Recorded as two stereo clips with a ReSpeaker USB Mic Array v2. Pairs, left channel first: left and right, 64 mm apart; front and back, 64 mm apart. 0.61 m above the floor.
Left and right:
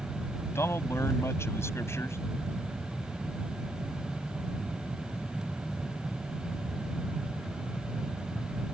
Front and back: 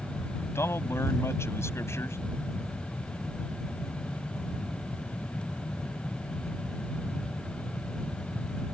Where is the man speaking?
45° left.